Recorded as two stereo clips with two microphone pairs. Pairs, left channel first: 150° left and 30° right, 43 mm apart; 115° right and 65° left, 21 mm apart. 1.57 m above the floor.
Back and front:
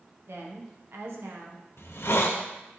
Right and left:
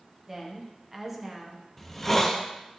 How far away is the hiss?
About 0.6 m.